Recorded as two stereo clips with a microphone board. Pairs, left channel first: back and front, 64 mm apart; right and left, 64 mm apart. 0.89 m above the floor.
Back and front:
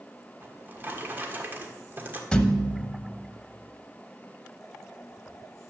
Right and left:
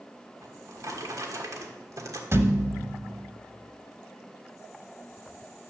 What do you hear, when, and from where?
0.4 s a drawer: 60° left, 1.4 m
2.3 s a thud: 110° left, 0.9 m